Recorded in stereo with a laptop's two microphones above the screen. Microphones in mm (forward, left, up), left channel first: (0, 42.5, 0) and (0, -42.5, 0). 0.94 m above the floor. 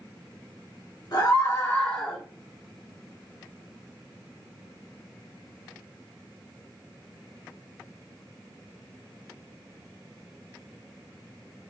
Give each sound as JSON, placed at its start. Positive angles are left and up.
{"t": 1.1, "sound": "a scream", "side_deg": 50, "distance_m": 1.1}